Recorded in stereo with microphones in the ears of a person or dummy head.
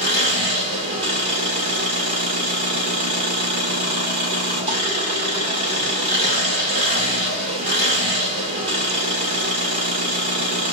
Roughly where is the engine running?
Right.